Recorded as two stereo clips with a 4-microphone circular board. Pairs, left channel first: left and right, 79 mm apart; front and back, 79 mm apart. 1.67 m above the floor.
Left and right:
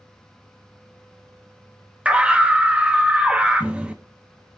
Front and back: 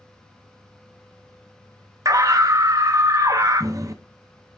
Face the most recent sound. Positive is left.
turn(degrees=-160)